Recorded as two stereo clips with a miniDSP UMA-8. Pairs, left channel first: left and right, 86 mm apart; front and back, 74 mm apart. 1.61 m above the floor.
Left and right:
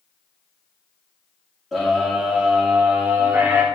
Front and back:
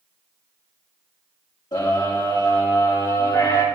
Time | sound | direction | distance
1.7 | a scream | straight ahead | 3.5 m